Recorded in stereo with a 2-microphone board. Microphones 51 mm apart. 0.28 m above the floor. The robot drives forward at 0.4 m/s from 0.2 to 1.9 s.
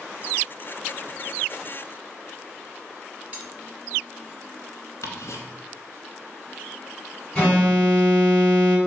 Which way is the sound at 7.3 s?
10° left (ahead or behind).